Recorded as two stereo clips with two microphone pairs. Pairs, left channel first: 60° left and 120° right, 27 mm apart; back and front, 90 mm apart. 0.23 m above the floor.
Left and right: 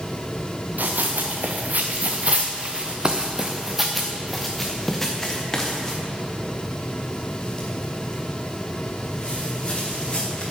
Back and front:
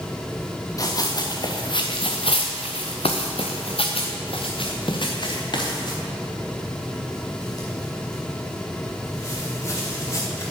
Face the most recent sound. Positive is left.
turn(degrees=120)